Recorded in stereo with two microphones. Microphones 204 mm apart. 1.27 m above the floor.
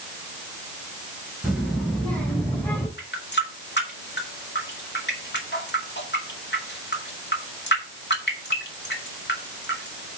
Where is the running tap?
60° left (ahead or behind), 2.0 m.